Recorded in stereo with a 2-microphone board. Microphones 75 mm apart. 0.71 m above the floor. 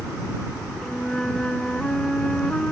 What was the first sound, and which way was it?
A flute, 10° left (ahead or behind).